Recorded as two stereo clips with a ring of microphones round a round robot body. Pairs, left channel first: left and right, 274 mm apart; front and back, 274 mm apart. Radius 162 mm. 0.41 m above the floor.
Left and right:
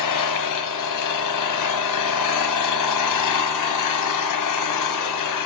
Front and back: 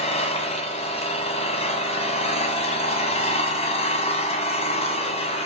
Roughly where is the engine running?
Left.